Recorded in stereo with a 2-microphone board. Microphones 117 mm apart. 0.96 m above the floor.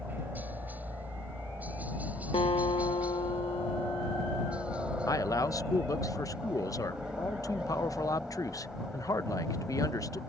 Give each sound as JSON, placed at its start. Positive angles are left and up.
{"t": 0.0, "sound": "a helicopter", "side_deg": -15}
{"t": 2.3, "sound": "a guitar", "side_deg": 50}
{"t": 5.1, "sound": "a man speaking", "side_deg": 25}